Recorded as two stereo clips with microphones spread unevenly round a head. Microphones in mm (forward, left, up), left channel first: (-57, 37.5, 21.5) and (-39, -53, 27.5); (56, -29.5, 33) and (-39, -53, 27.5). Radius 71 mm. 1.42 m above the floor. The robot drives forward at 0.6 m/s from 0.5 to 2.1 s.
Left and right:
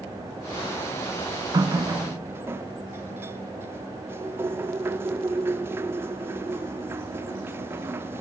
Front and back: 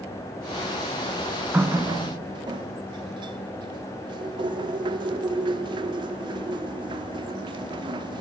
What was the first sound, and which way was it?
A running tap, 95° right.